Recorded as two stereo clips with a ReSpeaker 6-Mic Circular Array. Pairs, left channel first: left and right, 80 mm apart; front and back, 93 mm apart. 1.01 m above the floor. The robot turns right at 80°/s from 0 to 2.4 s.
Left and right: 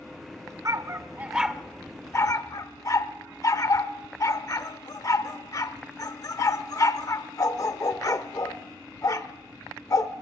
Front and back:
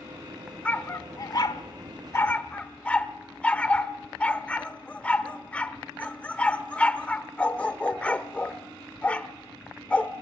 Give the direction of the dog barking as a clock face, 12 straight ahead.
2 o'clock.